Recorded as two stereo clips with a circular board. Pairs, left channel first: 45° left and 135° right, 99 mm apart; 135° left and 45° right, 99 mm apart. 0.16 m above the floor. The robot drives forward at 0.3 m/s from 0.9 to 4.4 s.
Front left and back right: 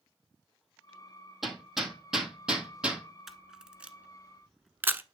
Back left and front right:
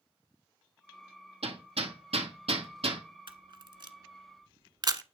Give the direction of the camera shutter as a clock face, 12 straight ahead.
2 o'clock.